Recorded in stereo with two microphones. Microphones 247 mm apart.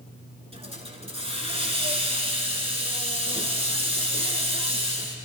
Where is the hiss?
25° right (ahead or behind), 1.4 m.